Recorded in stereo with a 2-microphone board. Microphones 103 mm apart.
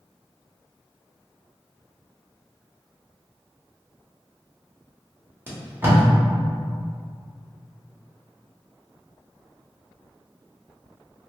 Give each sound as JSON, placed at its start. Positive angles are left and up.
{"t": 5.5, "sound": "tape being pulled", "side_deg": -20, "distance_m": 0.8}